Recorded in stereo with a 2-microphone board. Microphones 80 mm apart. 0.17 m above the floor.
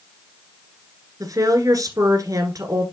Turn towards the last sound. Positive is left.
turn(degrees=-50)  # may be behind; listen again after turning